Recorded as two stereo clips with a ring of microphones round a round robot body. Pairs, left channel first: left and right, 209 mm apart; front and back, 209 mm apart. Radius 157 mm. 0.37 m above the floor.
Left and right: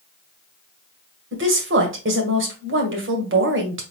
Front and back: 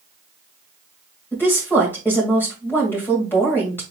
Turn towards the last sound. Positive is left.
turn(degrees=-80)